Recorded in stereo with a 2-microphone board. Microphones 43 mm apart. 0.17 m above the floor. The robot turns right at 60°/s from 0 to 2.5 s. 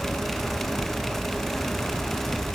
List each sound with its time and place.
Only background noise.